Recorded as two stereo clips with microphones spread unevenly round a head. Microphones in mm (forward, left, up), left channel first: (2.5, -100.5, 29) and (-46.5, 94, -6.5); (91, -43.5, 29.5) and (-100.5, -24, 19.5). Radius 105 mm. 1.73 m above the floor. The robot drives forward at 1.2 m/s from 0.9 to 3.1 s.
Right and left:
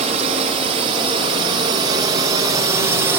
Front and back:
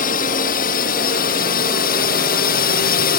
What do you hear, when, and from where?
0.0 s a drone: 45° left; by 3.2 s 30° left